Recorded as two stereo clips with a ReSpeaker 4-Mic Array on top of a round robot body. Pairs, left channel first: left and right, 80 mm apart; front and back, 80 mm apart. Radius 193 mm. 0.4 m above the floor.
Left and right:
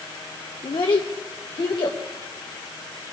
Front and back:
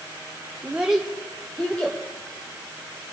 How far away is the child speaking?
About 1.0 m.